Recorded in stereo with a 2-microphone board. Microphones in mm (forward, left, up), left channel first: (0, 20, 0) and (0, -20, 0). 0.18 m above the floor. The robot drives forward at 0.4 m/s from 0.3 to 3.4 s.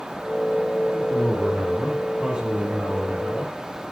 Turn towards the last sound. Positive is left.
turn(degrees=-25)  # may be behind; listen again after turning